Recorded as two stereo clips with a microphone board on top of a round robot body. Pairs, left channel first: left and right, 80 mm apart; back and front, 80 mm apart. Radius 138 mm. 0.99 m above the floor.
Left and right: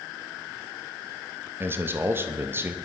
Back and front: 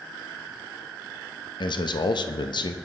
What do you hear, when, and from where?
1.6 s a man speaking: 155° right, 1.0 m